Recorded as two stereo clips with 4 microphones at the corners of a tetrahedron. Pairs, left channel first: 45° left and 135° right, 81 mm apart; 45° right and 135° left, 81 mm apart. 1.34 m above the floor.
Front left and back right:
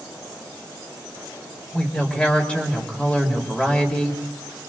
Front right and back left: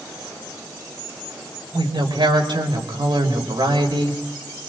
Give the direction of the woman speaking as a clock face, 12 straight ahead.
8 o'clock.